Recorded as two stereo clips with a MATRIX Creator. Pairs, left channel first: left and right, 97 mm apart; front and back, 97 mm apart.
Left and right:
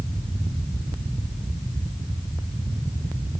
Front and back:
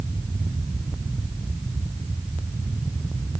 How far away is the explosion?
I don't hear an explosion.